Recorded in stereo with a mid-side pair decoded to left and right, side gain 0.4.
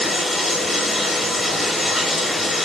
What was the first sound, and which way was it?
Running water, 30° left.